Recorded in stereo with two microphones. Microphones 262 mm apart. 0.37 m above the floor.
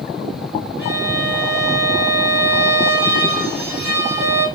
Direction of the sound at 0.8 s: 45° left (ahead or behind).